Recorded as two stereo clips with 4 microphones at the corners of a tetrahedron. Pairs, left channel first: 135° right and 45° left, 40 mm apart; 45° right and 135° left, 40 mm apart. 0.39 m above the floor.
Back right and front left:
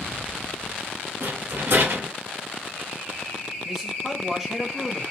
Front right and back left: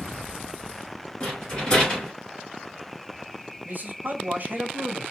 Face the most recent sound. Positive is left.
turn(degrees=120)